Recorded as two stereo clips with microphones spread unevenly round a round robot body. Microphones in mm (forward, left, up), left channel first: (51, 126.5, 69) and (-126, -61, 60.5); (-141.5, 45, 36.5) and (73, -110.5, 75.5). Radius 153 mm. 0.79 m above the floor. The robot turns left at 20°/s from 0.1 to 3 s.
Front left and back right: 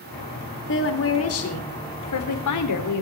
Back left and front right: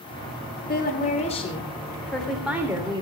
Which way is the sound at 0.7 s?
90° left.